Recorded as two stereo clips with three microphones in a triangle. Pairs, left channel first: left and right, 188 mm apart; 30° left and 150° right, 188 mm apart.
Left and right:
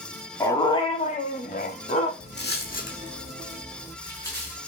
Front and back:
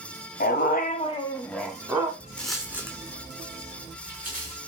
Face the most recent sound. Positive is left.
turn(degrees=165)